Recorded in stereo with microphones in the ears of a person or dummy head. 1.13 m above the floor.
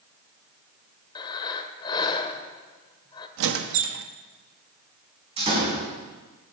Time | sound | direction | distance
1.1 | breathing | 25° left (ahead or behind) | 1.5 m
3.4 | a squeak | 75° right (ahead or behind) | 0.9 m
5.4 | a door slam | 35° right (ahead or behind) | 6 m